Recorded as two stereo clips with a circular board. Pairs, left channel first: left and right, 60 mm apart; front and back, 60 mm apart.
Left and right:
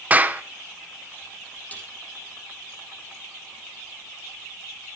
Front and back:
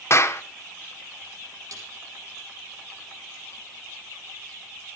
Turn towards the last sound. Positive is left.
turn(degrees=155)